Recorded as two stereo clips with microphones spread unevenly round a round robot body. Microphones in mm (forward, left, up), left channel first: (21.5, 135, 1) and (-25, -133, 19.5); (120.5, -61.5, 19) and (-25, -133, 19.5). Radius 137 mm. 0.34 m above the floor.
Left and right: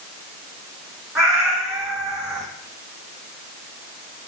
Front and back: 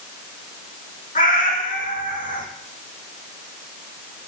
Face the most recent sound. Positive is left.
turn(degrees=-10)